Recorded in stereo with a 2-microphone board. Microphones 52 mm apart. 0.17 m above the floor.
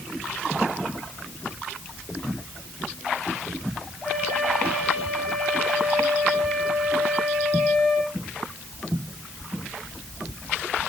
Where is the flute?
10° left (ahead or behind), 8.5 m.